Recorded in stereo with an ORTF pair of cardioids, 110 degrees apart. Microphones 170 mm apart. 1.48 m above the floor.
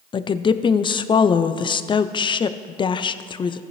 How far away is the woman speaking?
About 0.5 m.